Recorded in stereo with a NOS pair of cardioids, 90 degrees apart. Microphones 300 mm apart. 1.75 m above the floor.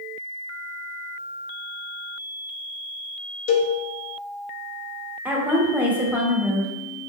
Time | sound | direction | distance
3.5 | a cowbell | 45° left | 1.0 m
5.2 | a woman speaking | 5° right | 1.5 m